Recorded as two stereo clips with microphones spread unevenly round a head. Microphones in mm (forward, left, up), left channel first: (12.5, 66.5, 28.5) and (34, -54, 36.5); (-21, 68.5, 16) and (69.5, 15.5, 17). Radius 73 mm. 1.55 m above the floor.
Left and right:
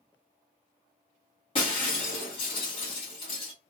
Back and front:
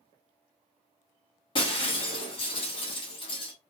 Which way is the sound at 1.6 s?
150° left.